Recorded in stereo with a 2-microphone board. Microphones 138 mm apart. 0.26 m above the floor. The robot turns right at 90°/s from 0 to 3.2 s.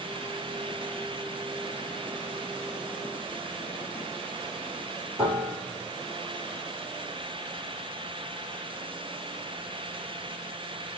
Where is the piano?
20° right (ahead or behind), 2.5 m.